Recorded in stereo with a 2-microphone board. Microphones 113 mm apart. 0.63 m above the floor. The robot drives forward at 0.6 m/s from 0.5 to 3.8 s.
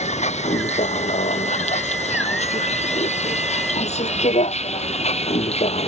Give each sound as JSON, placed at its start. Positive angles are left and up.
{"t": 0.0, "sound": "a vehicle", "side_deg": 90}